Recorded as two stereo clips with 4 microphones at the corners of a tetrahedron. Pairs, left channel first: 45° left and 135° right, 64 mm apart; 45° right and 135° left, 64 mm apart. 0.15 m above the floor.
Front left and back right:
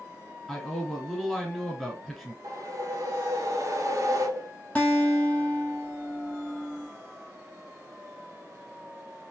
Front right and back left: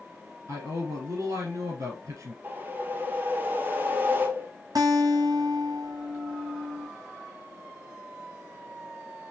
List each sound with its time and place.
0.5 s a man speaking: 125° left, 1.6 m
2.4 s a whoosh: 165° right, 0.6 m
4.8 s a guitar: 115° left, 1.0 m